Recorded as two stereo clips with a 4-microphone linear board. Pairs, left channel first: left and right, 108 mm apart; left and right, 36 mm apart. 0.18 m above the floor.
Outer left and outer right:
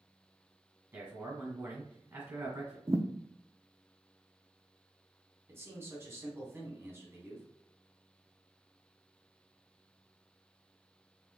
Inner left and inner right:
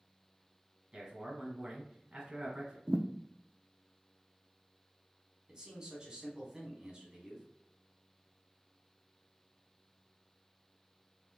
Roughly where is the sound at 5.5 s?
Right.